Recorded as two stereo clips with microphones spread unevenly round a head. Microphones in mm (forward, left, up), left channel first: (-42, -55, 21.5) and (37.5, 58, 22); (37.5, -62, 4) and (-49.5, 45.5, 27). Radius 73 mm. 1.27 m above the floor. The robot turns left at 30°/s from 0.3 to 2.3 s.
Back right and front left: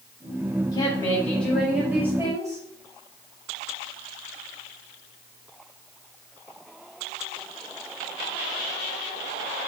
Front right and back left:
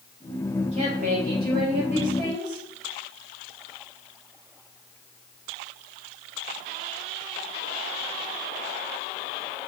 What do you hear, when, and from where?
0.7 s a woman speaking: 175° left, 5.5 m; by 2.6 s 130° left, 5.5 m